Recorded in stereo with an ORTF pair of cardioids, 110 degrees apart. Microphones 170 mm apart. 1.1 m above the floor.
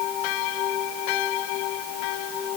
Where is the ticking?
I don't hear ticking.